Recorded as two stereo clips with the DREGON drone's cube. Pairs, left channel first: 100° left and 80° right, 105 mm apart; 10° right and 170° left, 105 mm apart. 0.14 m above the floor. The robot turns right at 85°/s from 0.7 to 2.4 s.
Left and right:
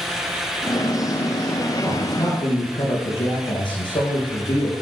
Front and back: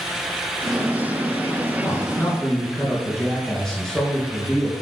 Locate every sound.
1.8 s a man speaking: 20° left, 3 m; by 4.7 s 70° left, 3 m